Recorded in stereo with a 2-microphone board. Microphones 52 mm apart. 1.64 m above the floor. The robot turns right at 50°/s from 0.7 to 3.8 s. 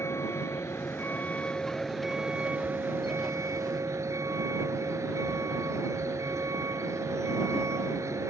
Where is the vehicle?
120° left; by 8.3 s 85° right.